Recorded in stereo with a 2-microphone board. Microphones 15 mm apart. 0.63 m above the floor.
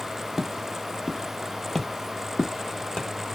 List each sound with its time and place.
0.4 s footsteps: 25° right (ahead or behind), 0.7 m; by 3.1 s 60° left (ahead or behind), 1.2 m